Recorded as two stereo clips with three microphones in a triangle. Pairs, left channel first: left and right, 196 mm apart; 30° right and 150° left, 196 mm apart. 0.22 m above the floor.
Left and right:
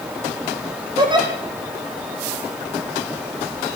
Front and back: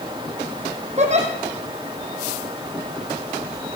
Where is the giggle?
155° right, 4 m.